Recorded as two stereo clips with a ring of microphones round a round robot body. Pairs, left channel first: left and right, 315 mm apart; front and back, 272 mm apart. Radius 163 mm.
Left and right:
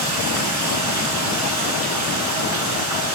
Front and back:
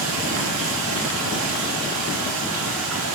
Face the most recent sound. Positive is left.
turn(degrees=-130)